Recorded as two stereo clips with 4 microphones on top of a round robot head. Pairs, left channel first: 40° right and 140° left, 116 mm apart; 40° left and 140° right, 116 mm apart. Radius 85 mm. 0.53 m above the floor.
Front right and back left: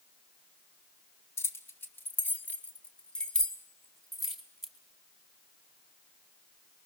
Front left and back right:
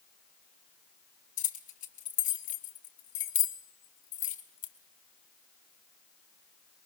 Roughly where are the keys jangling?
Ahead left.